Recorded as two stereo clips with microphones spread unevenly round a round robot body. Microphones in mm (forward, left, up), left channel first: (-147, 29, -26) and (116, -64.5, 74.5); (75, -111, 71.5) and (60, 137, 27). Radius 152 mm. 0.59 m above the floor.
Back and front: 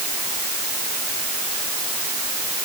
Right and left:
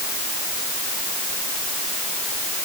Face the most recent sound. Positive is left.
No sound to turn to.